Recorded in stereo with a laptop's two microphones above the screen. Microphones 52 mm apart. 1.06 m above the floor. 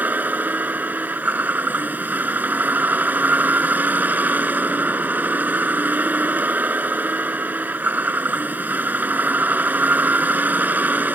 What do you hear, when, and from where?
0.0 s a vehicle: 35° right (ahead or behind)